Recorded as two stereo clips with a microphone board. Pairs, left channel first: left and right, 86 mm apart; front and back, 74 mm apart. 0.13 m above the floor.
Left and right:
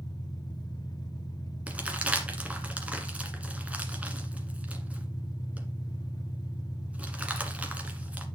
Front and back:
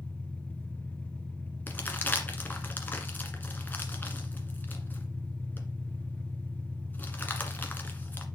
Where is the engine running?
70° left, 1.6 m.